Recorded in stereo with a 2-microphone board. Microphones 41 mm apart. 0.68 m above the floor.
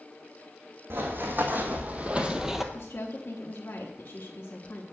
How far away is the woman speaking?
About 1.1 m.